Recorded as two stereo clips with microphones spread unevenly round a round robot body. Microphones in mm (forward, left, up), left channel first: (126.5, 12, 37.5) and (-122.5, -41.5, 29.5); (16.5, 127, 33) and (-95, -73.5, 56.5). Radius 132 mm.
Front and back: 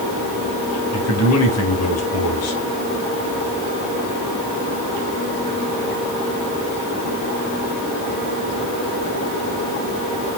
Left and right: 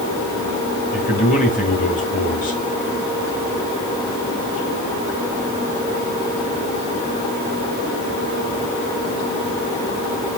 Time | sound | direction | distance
0.9 | a man speaking | 15° left | 2.5 m